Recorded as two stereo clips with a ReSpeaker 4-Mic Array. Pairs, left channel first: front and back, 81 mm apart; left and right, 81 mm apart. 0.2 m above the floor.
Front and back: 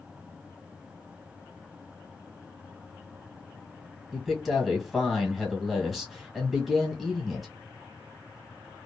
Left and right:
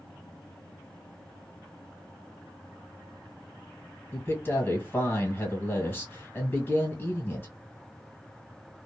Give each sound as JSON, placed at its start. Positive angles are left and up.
{"t": 4.1, "sound": "a man speaking", "azimuth_deg": 90, "distance_m": 1.5}